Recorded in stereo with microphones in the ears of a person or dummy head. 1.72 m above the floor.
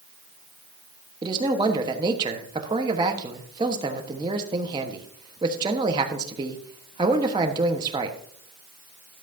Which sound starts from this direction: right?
A man speaking, at 1.2 s.